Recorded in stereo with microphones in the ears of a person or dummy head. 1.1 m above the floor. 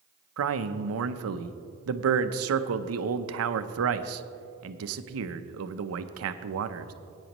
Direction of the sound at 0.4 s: 75° right (ahead or behind).